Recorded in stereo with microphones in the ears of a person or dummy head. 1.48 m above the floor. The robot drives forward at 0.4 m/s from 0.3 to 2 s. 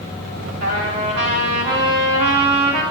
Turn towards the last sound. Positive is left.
turn(degrees=-75)  # may be behind; listen again after turning